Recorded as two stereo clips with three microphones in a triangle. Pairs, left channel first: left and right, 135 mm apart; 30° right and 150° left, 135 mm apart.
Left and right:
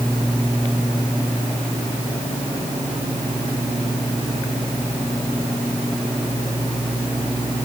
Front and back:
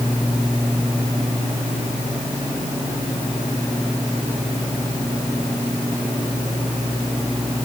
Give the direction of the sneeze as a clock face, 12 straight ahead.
I don't hear a sneeze.